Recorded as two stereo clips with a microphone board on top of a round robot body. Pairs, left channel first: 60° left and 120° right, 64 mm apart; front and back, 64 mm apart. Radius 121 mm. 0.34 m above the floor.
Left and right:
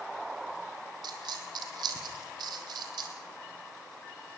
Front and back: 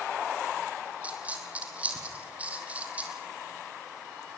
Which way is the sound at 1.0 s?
110° right.